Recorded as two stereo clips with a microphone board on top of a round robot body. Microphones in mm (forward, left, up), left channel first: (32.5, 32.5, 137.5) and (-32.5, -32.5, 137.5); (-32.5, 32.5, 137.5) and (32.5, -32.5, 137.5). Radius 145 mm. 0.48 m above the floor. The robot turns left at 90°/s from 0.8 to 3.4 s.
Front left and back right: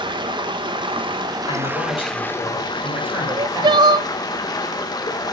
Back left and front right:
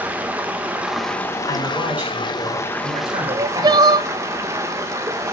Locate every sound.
0.0 s running water: 120° right, 1.9 m; by 5.3 s 10° left, 1.9 m
1.5 s a man speaking: 75° left, 7.5 m; by 4.0 s 100° right, 7.5 m
3.3 s crying: 80° right, 0.6 m; by 4.1 s 95° right, 0.6 m